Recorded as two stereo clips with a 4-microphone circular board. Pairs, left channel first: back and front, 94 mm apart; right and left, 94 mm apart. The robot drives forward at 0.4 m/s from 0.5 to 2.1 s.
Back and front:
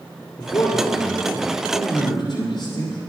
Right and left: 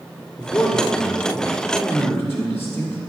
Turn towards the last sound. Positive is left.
turn(degrees=-150)